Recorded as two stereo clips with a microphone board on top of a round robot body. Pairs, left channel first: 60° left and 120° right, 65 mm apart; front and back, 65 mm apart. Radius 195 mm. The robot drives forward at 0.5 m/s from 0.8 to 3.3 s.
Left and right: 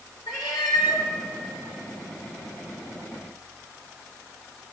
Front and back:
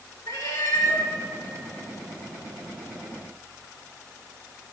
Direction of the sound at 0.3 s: 35° left.